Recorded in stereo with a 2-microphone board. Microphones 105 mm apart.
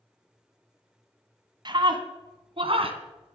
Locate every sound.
1.6 s a scream: 45° right (ahead or behind), 1.7 m; by 3.4 s 60° right (ahead or behind), 2.5 m